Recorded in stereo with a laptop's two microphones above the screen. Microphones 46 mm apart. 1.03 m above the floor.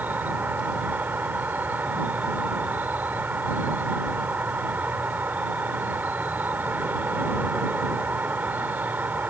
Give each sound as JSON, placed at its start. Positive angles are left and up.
{"t": 0.0, "sound": "an insect", "side_deg": -45}